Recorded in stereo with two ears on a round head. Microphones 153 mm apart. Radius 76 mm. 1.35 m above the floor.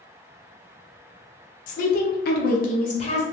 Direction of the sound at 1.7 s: 50° left (ahead or behind).